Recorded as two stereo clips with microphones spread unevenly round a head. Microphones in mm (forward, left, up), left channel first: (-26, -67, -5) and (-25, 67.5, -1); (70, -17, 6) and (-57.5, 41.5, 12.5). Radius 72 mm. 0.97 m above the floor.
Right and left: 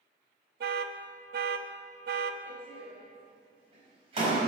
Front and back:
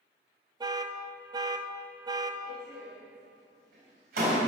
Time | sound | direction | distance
0.6 | an alarm | 95° left | 0.7 m
2.5 | a door slam | 135° left | 4 m